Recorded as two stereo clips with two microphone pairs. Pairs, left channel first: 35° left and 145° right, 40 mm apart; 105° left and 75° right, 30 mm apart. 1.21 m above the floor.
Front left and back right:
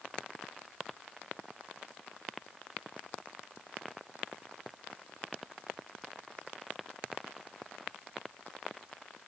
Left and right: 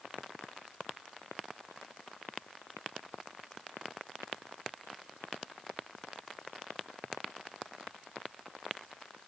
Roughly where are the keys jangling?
I don't hear keys jangling.